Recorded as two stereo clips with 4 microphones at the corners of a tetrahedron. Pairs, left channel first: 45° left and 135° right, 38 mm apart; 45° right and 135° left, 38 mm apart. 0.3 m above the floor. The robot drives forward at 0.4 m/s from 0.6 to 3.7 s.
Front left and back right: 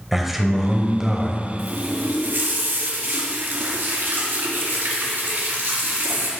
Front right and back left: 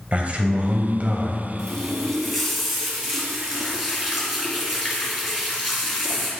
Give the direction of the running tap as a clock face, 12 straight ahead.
4 o'clock.